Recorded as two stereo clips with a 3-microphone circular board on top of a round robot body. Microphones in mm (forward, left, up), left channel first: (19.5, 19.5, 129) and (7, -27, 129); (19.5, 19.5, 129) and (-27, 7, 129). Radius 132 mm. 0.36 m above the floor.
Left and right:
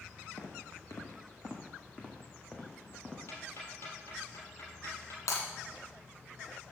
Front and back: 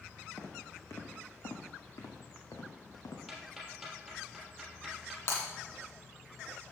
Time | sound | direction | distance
0.4 | footsteps | 60° left | 2 m
3.3 | ticking | 105° left | 3 m
5.3 | breaking glass | 60° left | 2.0 m